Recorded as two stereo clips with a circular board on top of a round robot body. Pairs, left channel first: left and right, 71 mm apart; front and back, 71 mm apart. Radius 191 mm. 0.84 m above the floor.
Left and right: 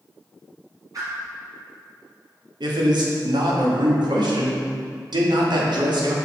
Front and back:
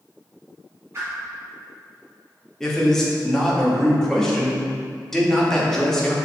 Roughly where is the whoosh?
Behind right.